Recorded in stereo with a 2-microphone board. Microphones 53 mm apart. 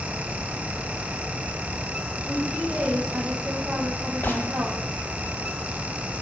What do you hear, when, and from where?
2.2 s a woman speaking: 35° right (ahead or behind), 5 m
4.2 s a gunshot: 40° left (ahead or behind), 1.0 m